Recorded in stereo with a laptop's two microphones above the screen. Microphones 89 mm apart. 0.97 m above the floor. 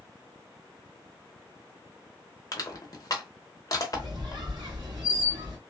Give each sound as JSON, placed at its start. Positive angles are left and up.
{"t": 2.5, "sound": "crushing", "side_deg": 45, "distance_m": 0.9}
{"t": 3.9, "sound": "a squeak", "side_deg": -55, "distance_m": 1.6}